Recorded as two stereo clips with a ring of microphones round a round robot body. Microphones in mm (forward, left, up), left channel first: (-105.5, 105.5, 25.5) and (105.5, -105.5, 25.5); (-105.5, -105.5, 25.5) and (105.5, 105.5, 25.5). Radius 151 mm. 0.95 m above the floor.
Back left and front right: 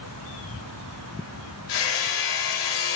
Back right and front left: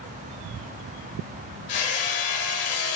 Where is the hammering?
Straight behind, 3.5 m.